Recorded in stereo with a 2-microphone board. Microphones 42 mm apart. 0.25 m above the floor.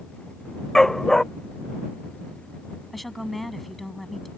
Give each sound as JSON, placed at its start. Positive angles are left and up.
{"t": 0.8, "sound": "a dog barking", "side_deg": 10}
{"t": 2.9, "sound": "a woman speaking", "side_deg": 0}